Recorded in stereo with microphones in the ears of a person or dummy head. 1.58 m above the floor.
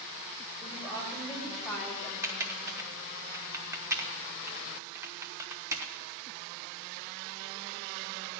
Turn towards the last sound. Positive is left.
turn(degrees=-15)  # may be behind; listen again after turning